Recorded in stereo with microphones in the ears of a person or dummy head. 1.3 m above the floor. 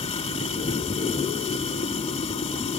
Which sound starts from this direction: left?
Running water, at 0.0 s.